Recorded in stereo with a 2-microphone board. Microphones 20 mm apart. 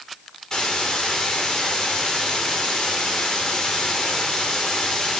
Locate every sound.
0.5 s a hiss: 40° left (ahead or behind), 5 m